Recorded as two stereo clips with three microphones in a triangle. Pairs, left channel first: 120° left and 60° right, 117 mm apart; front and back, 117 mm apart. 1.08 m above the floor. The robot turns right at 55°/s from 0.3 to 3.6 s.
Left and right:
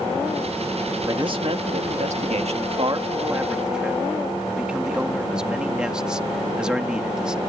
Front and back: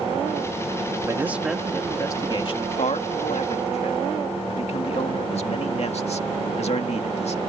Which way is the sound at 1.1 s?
115° right.